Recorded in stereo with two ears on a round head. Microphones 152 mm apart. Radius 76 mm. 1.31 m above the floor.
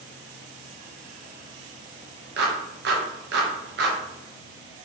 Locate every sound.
2.4 s a clap: 65° right (ahead or behind), 0.9 m